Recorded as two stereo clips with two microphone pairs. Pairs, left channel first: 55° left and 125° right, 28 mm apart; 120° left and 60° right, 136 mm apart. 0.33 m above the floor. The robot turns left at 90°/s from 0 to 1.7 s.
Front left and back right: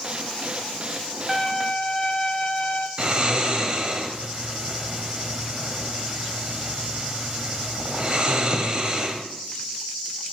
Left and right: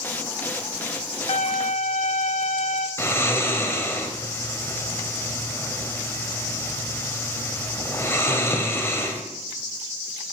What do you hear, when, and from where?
1.3 s a violin: 140° left, 0.6 m; by 2.9 s 105° left, 0.6 m
3.0 s snoring: 175° right, 0.9 m